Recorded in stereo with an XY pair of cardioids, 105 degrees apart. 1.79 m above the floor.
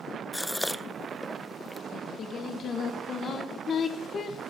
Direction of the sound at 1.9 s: 50° left.